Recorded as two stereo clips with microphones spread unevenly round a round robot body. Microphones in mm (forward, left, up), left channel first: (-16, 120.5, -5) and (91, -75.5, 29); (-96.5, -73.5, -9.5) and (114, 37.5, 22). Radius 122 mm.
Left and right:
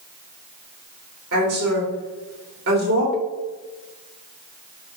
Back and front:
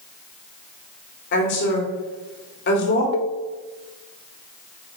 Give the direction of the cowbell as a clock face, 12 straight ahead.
5 o'clock.